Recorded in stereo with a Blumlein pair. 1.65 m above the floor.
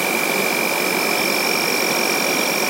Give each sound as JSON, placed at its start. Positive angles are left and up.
{"t": 0.0, "sound": "an insect", "azimuth_deg": -5}